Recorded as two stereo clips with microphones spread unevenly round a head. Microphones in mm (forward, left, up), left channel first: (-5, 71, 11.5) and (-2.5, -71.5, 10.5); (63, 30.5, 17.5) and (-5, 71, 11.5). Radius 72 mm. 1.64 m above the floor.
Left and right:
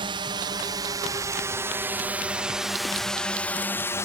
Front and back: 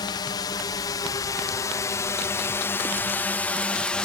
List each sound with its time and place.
0.0 s a drone: 40° right; by 4.0 s 40° left